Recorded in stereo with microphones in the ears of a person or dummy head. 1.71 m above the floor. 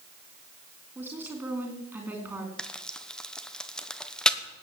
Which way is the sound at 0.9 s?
5° right (ahead or behind).